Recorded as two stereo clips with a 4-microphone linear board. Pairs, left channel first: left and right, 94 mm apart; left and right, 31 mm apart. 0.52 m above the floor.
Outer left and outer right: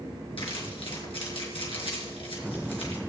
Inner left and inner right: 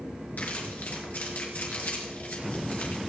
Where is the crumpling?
75° left (ahead or behind), 4.5 m.